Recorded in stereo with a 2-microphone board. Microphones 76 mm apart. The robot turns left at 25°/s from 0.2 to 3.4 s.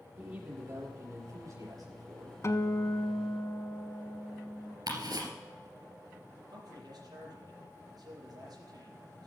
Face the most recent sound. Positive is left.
turn(degrees=-60)  # may be behind; listen again after turning